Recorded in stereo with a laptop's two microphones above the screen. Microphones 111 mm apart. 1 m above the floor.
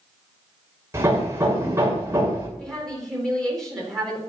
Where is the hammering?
25° right (ahead or behind), 2.5 m.